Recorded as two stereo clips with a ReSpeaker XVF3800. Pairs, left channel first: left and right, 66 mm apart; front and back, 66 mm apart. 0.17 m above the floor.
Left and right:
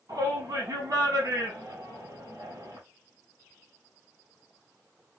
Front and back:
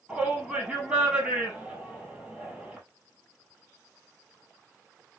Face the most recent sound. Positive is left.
turn(degrees=-100)